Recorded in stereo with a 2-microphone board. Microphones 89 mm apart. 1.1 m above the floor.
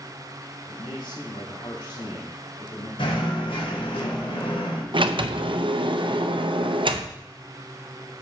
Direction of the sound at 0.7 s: 60° left (ahead or behind).